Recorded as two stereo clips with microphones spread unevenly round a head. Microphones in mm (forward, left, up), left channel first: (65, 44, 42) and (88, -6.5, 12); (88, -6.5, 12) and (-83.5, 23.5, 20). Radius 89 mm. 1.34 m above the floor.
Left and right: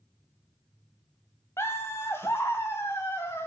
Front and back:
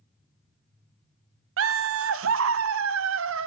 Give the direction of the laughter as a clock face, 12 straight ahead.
6 o'clock.